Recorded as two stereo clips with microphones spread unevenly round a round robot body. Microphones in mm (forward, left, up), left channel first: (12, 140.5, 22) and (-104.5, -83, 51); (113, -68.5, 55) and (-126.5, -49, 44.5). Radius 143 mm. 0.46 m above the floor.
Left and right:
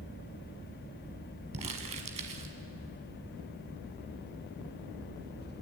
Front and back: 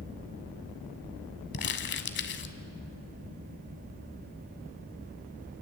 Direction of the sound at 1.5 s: 50° right.